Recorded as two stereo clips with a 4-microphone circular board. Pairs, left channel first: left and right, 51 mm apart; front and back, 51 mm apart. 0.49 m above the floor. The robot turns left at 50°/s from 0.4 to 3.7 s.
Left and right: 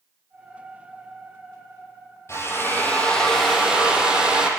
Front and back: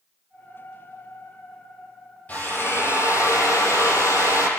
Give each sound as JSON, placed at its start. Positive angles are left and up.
{"t": 2.3, "sound": "a drill", "azimuth_deg": 60, "distance_m": 7.0}